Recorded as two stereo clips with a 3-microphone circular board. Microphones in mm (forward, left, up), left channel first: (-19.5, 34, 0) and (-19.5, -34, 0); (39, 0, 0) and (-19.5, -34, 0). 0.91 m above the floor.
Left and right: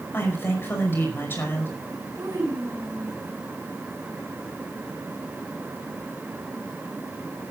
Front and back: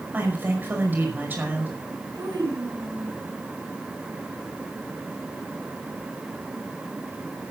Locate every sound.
0.1 s a woman speaking: 145° left, 5.5 m
2.1 s a child speaking: 125° right, 5.5 m